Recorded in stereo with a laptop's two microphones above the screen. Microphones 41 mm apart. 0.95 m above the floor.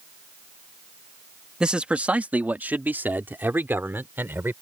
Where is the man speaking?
25° right (ahead or behind); by 4.5 s 65° right (ahead or behind).